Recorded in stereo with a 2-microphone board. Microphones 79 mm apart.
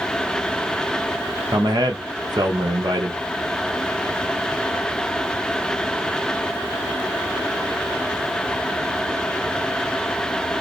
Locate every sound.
1.5 s a man speaking: 65° right (ahead or behind), 1.2 m